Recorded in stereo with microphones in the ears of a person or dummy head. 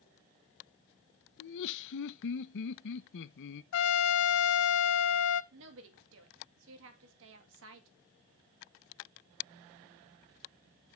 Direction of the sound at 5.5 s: 70° right (ahead or behind).